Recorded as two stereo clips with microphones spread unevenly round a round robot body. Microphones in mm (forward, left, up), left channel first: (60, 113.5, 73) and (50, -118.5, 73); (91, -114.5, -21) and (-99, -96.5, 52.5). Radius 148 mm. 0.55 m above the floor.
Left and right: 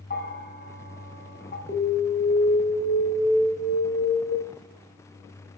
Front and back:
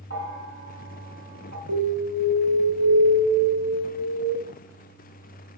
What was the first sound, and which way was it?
A bell, 40° left.